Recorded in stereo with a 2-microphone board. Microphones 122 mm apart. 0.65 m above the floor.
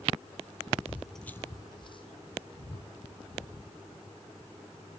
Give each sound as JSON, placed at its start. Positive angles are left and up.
{"t": 0.9, "sound": "footsteps", "side_deg": -20, "distance_m": 0.8}